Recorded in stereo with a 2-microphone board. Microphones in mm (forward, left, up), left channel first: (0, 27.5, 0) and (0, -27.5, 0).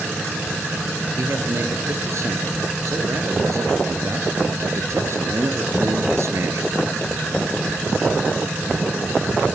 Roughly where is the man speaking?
Right.